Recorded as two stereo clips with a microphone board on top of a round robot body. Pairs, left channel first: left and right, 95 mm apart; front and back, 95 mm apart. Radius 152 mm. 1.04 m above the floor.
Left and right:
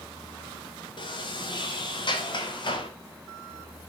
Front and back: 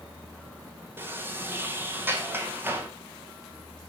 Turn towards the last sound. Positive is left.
turn(degrees=115)